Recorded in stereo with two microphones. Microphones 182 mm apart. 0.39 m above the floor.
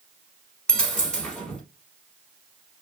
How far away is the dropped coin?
About 1.3 m.